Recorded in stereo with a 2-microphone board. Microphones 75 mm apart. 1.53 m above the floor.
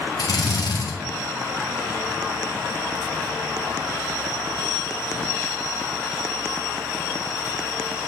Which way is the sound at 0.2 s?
65° left (ahead or behind).